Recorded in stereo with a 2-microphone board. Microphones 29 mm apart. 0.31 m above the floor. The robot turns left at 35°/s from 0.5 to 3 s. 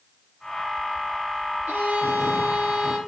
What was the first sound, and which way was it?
A violin, 105° right.